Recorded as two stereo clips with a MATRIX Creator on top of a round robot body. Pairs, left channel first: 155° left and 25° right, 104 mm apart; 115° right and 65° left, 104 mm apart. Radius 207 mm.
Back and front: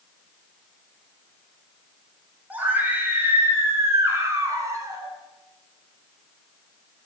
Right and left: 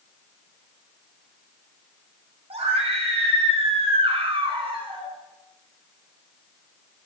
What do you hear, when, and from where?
2.5 s a scream: 50° left, 7 m; by 5.1 s 35° left, 8 m